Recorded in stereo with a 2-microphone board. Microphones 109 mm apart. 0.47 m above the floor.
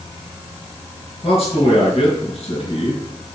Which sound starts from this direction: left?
A man speaking, at 1.2 s.